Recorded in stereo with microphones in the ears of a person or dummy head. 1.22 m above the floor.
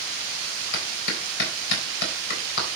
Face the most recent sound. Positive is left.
turn(degrees=65)  # may be behind; listen again after turning